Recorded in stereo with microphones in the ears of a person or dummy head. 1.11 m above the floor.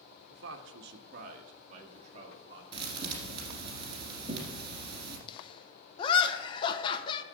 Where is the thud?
30° right (ahead or behind), 1.7 m.